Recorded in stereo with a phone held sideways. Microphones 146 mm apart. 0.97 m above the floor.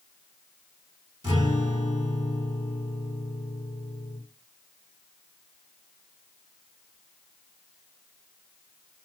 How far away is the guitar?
About 3.5 m.